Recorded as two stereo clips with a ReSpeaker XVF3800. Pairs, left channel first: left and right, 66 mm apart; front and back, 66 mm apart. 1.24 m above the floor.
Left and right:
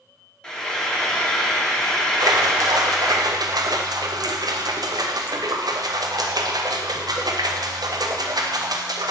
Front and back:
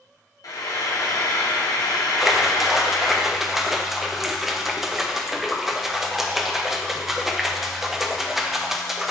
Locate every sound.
0.4 s frying: 15° left, 1.0 m
2.2 s a splash: 95° right, 0.5 m